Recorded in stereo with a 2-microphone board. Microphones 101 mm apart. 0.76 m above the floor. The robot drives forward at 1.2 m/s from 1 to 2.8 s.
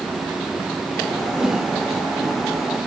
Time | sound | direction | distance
1.4 | a whoosh | 5° right (ahead or behind) | 1.7 m